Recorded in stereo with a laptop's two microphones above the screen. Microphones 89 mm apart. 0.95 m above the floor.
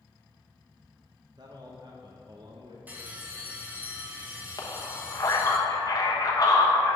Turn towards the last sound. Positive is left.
turn(degrees=45)  # may be behind; listen again after turning